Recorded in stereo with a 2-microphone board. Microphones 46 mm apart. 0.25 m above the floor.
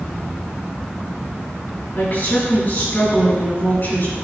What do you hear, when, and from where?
1.9 s a woman speaking: 45° left (ahead or behind), 3 m